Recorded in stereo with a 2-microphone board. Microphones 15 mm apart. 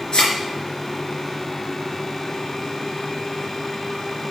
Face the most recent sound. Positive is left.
turn(degrees=60)  # may be behind; listen again after turning